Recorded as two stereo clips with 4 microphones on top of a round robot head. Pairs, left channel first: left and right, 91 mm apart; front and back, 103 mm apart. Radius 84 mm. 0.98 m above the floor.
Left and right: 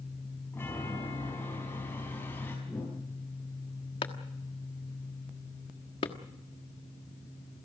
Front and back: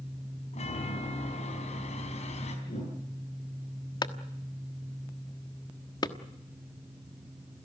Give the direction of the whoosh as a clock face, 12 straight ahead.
12 o'clock.